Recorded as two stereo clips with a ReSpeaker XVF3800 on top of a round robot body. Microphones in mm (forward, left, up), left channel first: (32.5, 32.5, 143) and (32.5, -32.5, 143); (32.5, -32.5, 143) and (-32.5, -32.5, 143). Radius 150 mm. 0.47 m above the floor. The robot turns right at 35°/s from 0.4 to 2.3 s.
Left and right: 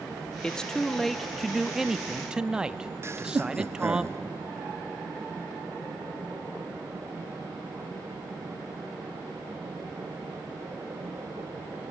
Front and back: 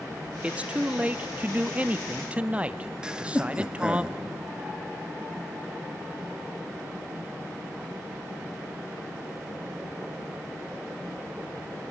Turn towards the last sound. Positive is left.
turn(degrees=-110)